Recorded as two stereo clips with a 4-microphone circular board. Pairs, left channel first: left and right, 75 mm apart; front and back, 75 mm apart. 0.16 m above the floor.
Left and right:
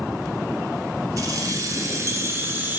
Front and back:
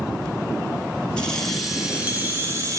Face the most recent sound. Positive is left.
turn(degrees=-150)